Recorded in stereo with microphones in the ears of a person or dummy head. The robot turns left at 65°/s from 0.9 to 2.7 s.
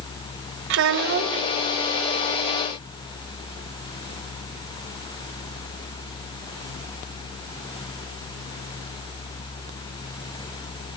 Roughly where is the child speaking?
Behind right.